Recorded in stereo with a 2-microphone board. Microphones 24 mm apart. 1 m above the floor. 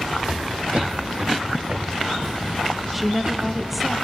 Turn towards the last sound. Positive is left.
turn(degrees=-5)  # may be behind; listen again after turning